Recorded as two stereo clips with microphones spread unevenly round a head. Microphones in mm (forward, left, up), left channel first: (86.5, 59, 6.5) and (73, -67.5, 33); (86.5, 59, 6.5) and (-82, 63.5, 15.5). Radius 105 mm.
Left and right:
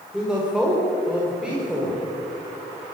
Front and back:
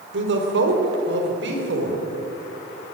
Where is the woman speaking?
175° left, 3.5 m; by 2.0 s straight behind, 5 m.